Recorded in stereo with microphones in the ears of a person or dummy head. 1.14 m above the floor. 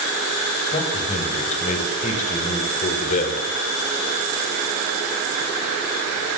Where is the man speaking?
35° left (ahead or behind), 6 m; by 3.5 s 40° left (ahead or behind), 4 m.